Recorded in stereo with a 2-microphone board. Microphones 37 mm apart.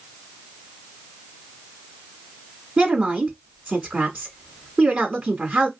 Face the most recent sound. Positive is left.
turn(degrees=-35)  # may be behind; listen again after turning